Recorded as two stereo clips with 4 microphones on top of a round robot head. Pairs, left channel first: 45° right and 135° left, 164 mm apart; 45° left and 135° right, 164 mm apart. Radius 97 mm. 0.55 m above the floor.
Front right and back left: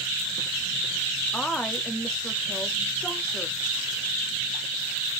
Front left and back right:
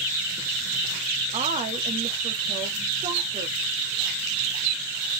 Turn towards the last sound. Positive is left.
turn(degrees=-130)